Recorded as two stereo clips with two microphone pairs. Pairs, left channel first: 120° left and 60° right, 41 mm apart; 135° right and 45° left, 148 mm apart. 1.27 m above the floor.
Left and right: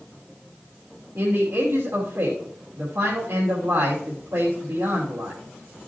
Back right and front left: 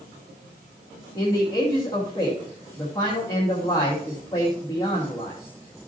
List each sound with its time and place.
1.1 s a man speaking: 70° right, 2.5 m